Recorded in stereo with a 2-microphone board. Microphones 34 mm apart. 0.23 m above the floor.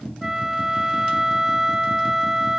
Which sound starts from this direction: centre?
A flute, at 0.2 s.